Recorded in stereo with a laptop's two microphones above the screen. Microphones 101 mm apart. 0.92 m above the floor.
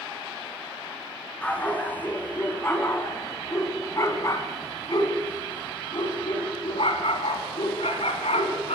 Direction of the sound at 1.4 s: 15° left (ahead or behind).